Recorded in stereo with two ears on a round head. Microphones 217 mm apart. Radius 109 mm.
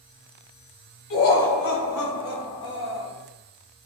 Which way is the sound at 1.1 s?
60° left (ahead or behind).